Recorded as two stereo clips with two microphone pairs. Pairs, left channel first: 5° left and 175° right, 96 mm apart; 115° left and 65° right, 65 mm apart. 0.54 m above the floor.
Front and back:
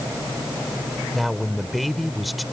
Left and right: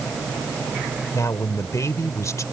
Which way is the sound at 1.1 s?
95° left.